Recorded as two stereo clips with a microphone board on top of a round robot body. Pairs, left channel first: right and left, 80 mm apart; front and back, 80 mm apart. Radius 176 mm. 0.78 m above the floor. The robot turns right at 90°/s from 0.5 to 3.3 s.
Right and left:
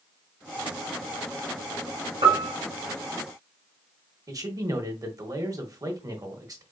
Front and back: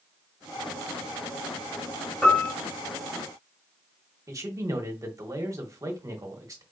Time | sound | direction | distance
2.2 | a piano | 80° left | 0.5 m
4.3 | a man speaking | 130° left | 1.2 m